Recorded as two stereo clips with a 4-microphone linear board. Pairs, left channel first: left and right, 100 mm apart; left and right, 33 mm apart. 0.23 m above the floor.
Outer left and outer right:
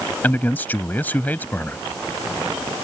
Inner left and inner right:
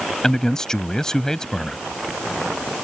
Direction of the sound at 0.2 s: 20° left (ahead or behind).